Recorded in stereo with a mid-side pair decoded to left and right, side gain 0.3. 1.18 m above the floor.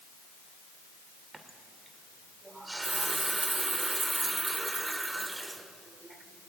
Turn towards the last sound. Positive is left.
turn(degrees=-30)